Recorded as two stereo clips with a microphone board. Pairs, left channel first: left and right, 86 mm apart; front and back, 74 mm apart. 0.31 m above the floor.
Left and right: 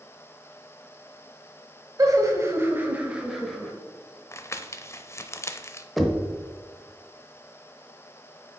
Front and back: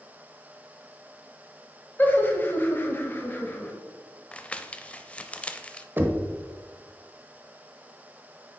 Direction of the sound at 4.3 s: 60° left.